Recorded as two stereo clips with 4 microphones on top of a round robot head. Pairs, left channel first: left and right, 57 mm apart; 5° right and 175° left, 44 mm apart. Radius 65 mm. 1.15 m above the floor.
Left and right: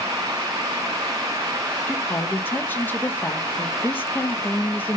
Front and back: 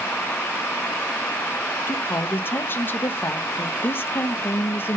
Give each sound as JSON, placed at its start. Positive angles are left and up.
{"t": 1.9, "sound": "a woman speaking", "azimuth_deg": 30, "distance_m": 1.3}